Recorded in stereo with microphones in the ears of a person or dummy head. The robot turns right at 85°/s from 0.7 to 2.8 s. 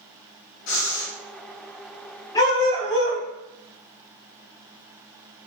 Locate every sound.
0.7 s breathing: 70° left, 0.9 m; by 1.1 s 105° left, 0.9 m
2.4 s a dog barking: 35° left, 0.9 m; by 3.2 s 70° left, 0.9 m